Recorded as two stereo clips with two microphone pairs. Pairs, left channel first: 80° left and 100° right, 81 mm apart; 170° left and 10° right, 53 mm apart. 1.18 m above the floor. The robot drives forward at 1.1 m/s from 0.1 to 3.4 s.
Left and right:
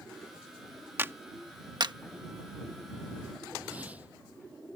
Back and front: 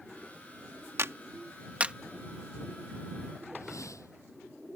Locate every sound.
1.0 s a clap: 40° right; by 1.9 s 80° right
3.5 s a whoosh: 175° right